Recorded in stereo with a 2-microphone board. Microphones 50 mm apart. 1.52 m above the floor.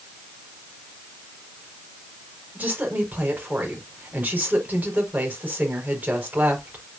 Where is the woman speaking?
30° right (ahead or behind), 5 m.